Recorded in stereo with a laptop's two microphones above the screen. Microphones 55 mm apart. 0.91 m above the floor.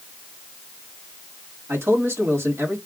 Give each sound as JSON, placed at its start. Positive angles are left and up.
{"t": 1.7, "sound": "a man speaking", "side_deg": -45, "distance_m": 1.9}